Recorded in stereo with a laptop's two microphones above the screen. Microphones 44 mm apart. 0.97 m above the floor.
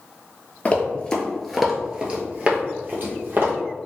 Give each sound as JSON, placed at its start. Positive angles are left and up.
{"t": 0.7, "sound": "running footsteps", "side_deg": 35, "distance_m": 1.1}